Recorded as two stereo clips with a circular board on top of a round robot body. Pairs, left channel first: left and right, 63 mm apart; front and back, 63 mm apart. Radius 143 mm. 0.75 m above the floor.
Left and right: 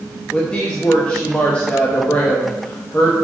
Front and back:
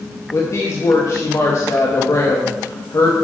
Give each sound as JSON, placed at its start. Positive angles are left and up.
{"t": 0.3, "sound": "a woman speaking", "azimuth_deg": 20, "distance_m": 1.6}